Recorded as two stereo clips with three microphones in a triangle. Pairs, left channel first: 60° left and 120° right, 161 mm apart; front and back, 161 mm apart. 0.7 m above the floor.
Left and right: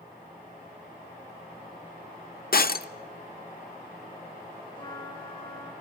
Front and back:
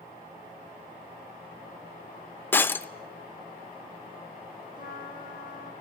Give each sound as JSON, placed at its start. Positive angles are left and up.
{"t": 2.5, "sound": "breaking glass", "azimuth_deg": 80, "distance_m": 0.7}
{"t": 4.8, "sound": "a trumpet", "azimuth_deg": 115, "distance_m": 7.0}